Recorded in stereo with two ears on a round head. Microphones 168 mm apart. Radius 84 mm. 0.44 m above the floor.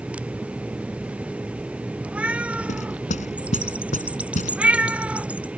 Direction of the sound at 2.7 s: 40° left (ahead or behind).